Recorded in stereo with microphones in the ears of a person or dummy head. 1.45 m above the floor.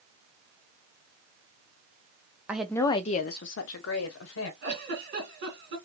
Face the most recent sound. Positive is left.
turn(degrees=-55)  # may be behind; listen again after turning